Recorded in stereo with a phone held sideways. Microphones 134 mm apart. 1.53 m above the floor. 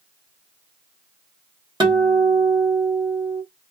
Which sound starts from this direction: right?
A guitar, at 1.8 s.